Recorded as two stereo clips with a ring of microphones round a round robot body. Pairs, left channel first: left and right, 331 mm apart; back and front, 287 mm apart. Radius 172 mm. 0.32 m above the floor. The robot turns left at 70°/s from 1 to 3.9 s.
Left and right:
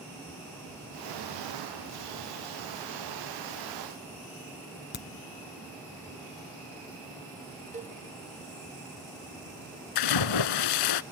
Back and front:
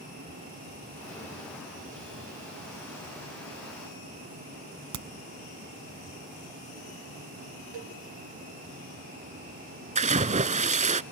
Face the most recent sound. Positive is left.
turn(degrees=65)